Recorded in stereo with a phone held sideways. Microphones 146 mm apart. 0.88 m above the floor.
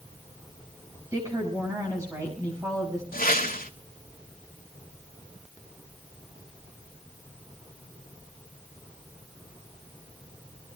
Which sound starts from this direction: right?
A woman speaking, at 1.1 s.